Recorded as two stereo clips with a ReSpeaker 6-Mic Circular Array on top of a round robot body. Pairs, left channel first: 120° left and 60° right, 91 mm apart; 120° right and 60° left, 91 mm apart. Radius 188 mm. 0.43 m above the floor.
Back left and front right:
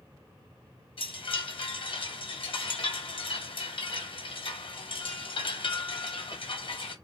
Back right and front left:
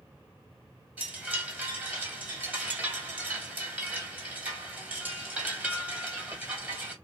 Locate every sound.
1.0 s a chime: 130° left, 1.7 m